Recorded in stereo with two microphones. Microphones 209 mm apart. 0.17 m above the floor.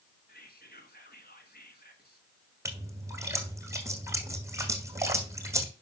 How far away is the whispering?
About 2.5 m.